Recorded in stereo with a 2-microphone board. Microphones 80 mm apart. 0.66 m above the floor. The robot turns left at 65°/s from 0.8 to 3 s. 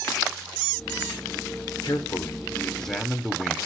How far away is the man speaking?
About 1.9 m.